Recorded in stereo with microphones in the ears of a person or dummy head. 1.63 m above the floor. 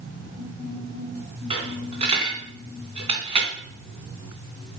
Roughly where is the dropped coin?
Right.